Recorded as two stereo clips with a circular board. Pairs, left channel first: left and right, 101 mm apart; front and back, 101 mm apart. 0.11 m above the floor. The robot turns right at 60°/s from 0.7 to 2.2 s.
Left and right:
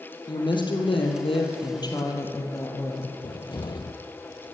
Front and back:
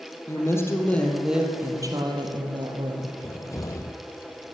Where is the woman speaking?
60° left, 2.5 m; by 3.1 s 150° left, 2.5 m.